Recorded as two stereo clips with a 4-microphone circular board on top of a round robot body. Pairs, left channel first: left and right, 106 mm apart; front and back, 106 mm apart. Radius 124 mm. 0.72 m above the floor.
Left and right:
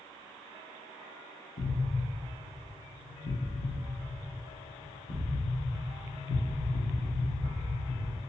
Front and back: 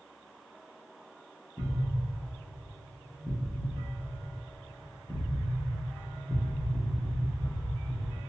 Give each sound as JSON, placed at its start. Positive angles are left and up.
{"t": 1.6, "sound": "an explosion", "azimuth_deg": 80, "distance_m": 0.9}